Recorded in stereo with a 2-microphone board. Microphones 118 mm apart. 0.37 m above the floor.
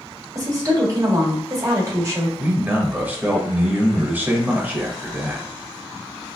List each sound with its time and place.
0.3 s a woman speaking: 35° right (ahead or behind), 1.3 m
2.4 s a man speaking: 15° right (ahead or behind), 1.1 m